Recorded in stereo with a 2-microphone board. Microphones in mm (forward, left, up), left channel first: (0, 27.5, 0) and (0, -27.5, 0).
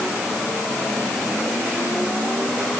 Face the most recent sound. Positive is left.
No sound to turn to.